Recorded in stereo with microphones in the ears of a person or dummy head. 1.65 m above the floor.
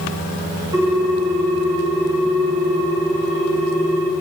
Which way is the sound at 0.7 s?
25° right (ahead or behind).